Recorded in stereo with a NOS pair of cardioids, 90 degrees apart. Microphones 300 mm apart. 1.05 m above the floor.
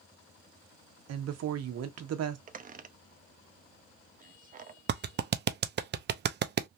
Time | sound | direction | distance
1.1 | a woman speaking | 60° right | 1.1 m
2.5 | a squeak | 30° right | 0.6 m
4.9 | a clap | 35° right | 0.6 m